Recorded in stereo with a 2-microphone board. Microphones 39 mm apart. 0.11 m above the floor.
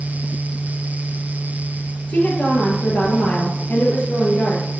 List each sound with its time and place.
2.1 s a woman speaking: 50° left (ahead or behind), 2.5 m